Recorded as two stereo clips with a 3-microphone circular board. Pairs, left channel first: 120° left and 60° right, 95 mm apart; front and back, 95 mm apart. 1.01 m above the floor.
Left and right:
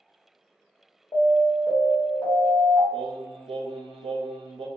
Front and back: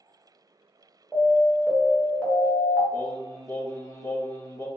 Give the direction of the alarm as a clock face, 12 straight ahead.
9 o'clock.